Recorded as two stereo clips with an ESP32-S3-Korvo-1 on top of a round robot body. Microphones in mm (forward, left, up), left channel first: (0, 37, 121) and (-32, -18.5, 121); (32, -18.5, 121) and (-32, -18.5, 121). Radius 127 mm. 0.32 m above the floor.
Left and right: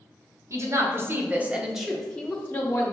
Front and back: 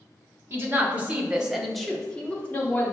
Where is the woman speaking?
135° right, 1.4 m; by 2.9 s 35° left, 1.3 m.